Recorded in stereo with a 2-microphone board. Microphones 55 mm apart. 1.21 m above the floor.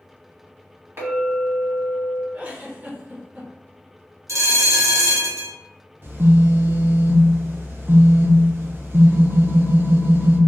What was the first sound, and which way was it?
A clink, 45° right (ahead or behind).